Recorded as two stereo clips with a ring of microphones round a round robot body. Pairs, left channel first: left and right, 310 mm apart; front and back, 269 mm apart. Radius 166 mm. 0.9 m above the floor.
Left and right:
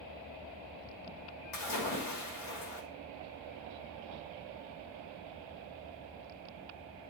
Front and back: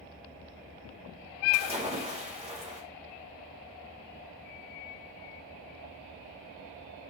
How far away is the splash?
About 2.5 m.